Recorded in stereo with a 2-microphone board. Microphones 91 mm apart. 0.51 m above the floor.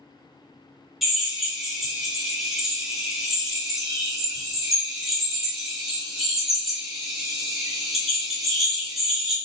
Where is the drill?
Centre (ahead or behind), 0.8 m.